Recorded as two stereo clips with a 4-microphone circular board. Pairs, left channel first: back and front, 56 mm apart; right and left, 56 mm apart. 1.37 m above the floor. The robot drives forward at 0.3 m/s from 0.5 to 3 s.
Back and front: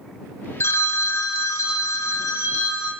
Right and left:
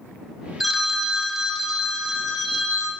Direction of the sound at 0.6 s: 175° left.